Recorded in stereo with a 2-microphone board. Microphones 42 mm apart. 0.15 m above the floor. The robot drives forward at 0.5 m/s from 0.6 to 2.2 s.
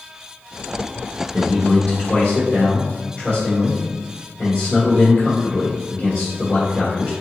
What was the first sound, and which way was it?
A man speaking, 20° left (ahead or behind).